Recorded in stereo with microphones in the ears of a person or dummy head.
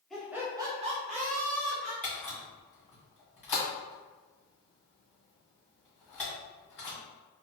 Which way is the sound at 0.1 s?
Centre (ahead or behind).